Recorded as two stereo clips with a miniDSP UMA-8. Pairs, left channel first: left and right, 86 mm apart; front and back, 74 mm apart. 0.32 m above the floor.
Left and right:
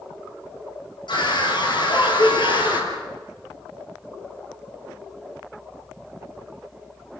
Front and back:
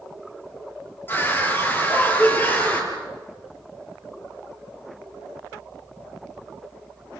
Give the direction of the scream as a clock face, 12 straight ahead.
10 o'clock.